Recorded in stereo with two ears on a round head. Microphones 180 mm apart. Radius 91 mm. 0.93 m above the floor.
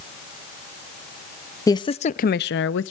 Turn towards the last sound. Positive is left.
turn(degrees=70)  # may be behind; listen again after turning